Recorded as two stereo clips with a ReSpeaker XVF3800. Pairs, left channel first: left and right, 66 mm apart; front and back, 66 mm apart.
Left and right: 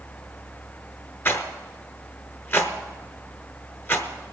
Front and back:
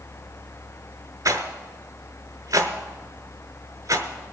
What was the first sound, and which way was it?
A rattle, 145° left.